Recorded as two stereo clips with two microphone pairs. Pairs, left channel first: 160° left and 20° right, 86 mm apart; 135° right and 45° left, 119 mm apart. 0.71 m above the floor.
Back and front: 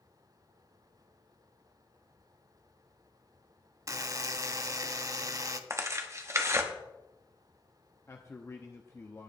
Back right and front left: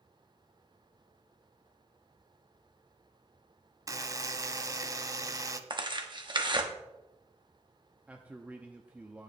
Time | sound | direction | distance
3.9 | a buzzer | 5° right | 0.7 m
5.7 | tearing paper | 20° left | 1.1 m
8.1 | a man speaking | 115° left | 0.7 m